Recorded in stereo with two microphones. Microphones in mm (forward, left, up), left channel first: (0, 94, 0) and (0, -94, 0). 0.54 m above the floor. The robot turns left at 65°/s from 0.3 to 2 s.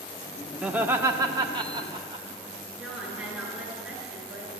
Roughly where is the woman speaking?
Centre.